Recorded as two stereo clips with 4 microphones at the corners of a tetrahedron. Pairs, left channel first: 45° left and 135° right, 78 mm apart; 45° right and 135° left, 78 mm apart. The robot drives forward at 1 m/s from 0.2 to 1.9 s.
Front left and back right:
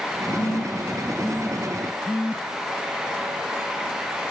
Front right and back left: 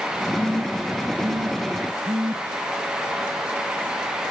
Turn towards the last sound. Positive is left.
turn(degrees=120)